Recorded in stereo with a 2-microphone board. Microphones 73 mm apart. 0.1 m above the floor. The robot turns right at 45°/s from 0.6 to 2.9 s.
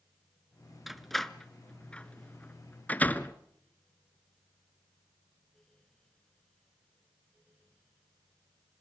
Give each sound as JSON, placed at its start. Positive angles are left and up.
{"t": 0.9, "sound": "a door slam", "side_deg": 0, "distance_m": 0.8}